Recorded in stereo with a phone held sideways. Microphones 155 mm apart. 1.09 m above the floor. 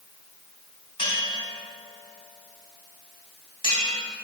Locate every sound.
1.0 s a bell: 35° left (ahead or behind), 3.5 m